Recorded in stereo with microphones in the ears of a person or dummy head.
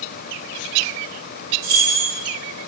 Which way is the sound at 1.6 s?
50° right (ahead or behind).